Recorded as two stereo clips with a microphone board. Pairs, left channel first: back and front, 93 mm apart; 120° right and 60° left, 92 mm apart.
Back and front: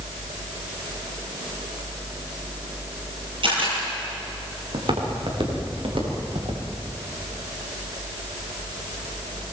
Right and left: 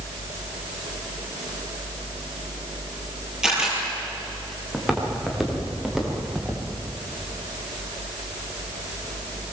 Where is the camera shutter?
25° right, 9.5 m.